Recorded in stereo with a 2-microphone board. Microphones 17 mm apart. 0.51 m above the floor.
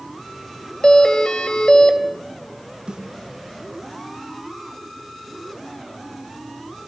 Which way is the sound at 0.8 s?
60° left (ahead or behind).